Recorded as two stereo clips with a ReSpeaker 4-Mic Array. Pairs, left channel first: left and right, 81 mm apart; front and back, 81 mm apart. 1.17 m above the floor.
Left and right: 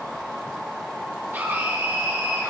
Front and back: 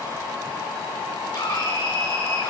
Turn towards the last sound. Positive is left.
turn(degrees=-35)